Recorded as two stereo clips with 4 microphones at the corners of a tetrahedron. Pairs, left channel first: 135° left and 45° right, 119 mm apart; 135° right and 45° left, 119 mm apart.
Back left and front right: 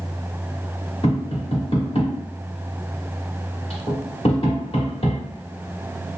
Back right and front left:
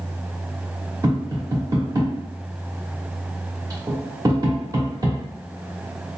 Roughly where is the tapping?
Left.